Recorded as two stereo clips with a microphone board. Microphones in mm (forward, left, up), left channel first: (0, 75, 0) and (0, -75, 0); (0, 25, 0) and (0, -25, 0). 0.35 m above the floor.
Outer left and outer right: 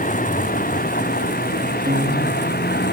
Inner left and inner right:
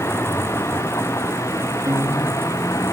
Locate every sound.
0.0 s a vehicle: 60° left (ahead or behind); by 2.9 s 80° left
1.9 s a guitar: 75° right (ahead or behind)